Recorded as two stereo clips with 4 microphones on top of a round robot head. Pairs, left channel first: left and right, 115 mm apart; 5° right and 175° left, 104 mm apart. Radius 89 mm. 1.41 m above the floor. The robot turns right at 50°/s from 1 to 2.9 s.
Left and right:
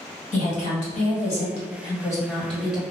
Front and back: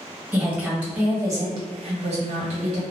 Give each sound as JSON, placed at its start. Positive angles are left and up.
{"t": 0.3, "sound": "a woman speaking", "azimuth_deg": 100, "distance_m": 1.4}